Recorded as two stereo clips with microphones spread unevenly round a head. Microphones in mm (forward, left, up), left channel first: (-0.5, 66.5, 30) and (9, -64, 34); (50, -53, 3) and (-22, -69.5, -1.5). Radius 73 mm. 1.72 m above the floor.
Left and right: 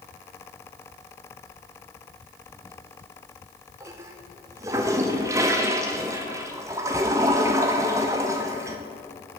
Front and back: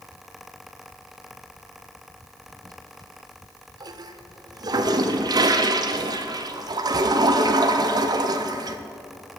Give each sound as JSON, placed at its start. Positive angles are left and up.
{"t": 2.5, "sound": "a toilet flushing", "azimuth_deg": -150, "distance_m": 0.6}